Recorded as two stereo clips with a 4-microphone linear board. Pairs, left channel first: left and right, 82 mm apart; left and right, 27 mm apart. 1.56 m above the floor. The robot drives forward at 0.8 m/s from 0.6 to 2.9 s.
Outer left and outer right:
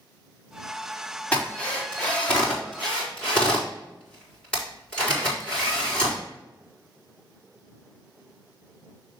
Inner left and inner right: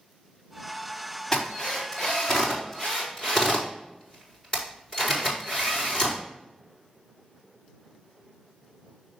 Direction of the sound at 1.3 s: 15° left (ahead or behind).